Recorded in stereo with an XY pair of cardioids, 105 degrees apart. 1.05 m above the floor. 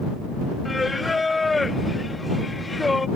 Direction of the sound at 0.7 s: 20° left.